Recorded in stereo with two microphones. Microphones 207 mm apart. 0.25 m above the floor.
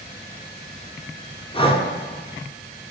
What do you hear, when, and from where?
1.5 s breathing: 25° left (ahead or behind), 0.6 m